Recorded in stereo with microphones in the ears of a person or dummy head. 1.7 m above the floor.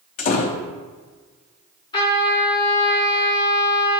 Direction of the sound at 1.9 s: 25° left (ahead or behind).